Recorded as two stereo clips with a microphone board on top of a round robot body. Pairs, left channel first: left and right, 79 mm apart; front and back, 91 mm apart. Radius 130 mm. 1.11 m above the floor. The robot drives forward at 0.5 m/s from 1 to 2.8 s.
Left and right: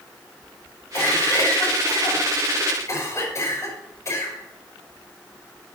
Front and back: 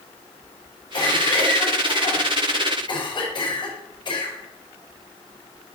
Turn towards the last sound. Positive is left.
turn(degrees=40)